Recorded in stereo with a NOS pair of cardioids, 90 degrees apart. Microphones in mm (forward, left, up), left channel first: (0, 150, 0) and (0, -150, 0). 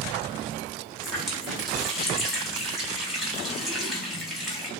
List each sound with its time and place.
1.0 s a running tap: straight ahead, 2.5 m